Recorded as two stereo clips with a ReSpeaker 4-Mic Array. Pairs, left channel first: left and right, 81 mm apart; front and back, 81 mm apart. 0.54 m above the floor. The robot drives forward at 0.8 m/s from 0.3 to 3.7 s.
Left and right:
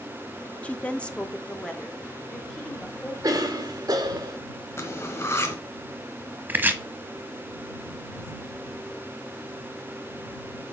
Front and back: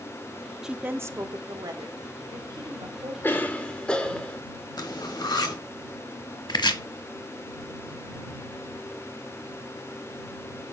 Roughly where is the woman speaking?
Behind left.